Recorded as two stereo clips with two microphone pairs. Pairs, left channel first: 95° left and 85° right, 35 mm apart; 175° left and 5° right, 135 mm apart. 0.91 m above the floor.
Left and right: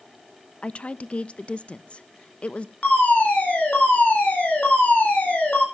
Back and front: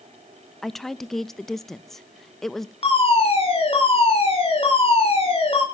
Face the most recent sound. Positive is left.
turn(degrees=130)